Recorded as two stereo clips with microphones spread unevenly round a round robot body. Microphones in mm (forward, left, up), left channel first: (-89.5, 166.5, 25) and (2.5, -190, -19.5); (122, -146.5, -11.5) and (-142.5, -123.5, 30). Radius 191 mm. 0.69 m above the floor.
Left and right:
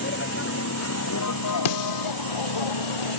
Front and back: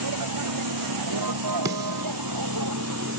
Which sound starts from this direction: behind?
A vehicle, at 0.0 s.